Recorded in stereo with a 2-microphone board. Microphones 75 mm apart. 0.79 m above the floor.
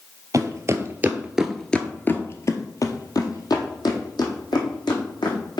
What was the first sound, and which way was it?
Footsteps, 50° right (ahead or behind).